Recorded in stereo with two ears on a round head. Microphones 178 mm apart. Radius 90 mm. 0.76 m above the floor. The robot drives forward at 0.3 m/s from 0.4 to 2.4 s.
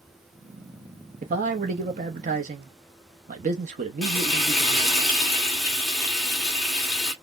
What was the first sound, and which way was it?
A man speaking, 40° right (ahead or behind).